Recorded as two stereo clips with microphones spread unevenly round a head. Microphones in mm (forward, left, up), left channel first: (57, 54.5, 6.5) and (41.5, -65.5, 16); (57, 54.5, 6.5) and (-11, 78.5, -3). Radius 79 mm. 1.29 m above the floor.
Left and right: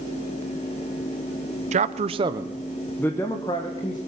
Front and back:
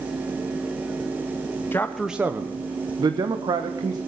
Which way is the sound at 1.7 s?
90° right.